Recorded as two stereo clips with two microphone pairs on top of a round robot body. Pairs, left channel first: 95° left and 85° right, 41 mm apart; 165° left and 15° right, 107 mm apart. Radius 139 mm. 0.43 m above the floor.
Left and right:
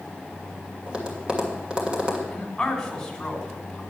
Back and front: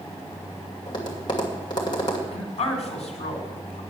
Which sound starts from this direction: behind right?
Tapping, at 0.9 s.